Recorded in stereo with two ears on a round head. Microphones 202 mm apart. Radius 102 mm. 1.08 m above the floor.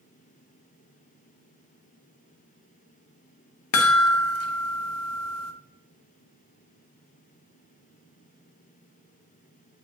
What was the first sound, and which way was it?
A chime, 75° left (ahead or behind).